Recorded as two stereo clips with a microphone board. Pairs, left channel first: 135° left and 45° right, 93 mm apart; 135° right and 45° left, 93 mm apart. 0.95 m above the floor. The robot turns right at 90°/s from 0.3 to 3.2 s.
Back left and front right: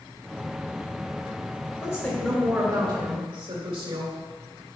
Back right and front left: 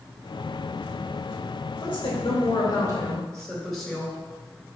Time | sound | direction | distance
1.8 | a woman speaking | 175° right | 2.5 m